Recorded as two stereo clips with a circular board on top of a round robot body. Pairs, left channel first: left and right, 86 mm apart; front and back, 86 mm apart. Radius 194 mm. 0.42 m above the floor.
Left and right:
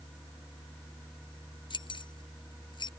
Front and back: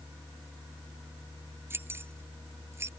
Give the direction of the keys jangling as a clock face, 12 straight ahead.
8 o'clock.